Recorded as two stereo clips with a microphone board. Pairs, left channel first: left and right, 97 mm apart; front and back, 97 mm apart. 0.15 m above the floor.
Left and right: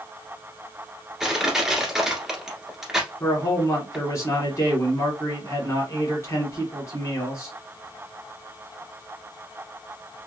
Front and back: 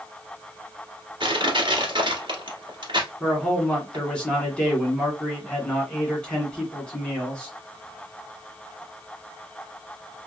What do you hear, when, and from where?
1.2 s crushing: 175° right, 1.4 m
3.2 s a man speaking: 70° left, 1.8 m